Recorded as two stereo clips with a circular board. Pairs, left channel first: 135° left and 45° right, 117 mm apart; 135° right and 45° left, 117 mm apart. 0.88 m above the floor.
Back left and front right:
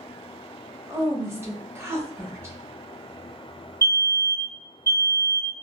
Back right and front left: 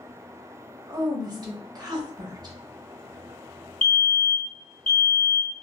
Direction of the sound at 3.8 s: 70° right.